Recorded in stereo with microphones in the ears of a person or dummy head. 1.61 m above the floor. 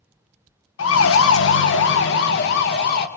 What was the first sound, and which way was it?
A siren, 80° left.